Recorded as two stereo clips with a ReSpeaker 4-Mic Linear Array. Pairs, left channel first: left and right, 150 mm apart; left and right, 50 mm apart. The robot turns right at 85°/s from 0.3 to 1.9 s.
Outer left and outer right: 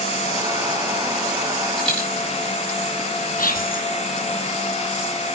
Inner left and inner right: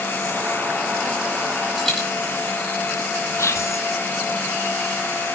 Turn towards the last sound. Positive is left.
turn(degrees=65)  # may be behind; listen again after turning